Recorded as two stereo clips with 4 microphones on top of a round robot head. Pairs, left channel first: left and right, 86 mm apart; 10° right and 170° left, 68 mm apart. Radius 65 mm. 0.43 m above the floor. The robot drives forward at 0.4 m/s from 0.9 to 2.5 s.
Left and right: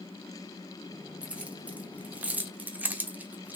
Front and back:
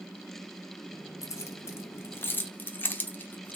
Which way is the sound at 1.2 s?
20° right.